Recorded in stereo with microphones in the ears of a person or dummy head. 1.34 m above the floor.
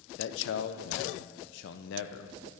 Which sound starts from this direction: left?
A man speaking, at 0.2 s.